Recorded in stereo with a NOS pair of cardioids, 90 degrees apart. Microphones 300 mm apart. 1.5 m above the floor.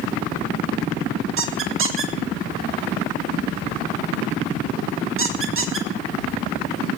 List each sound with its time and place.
1.4 s a squeak: 45° right, 1.9 m